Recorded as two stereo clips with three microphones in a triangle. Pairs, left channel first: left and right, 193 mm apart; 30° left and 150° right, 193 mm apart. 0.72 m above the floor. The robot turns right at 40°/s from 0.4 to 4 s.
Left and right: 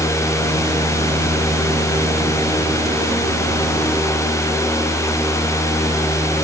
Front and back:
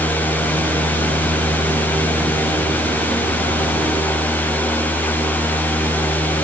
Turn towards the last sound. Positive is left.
No sound to turn to.